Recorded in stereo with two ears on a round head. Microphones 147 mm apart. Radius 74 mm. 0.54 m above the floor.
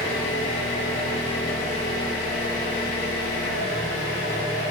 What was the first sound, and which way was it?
An engine running, 70° left (ahead or behind).